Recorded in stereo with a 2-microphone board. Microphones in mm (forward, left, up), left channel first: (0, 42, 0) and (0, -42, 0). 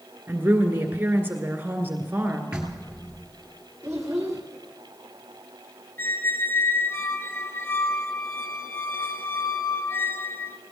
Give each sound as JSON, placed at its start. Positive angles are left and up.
{"t": 0.3, "sound": "a woman speaking", "side_deg": -25, "distance_m": 1.8}
{"t": 2.5, "sound": "knocking", "side_deg": -15, "distance_m": 2.0}
{"t": 3.8, "sound": "a child speaking", "side_deg": -15, "distance_m": 2.5}
{"t": 6.0, "sound": "a squeak", "side_deg": 30, "distance_m": 0.6}